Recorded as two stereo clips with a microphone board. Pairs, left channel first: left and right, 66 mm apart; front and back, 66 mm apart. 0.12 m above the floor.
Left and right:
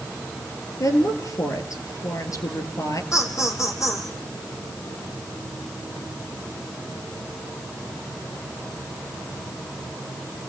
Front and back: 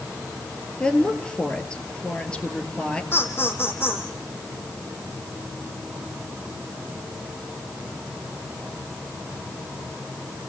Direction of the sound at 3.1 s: 50° left.